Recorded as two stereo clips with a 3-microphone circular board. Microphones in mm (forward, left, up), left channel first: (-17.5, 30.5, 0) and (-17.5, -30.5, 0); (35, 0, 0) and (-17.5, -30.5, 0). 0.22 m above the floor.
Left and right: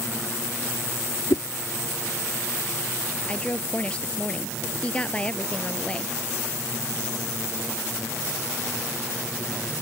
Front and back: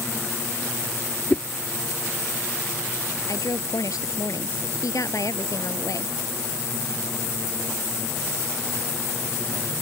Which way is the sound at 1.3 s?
95° left.